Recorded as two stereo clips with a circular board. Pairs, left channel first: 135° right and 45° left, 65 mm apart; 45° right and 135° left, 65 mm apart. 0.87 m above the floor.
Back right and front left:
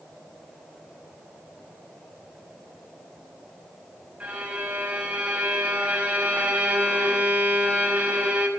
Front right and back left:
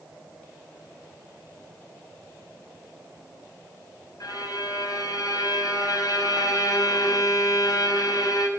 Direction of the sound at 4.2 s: 25° right.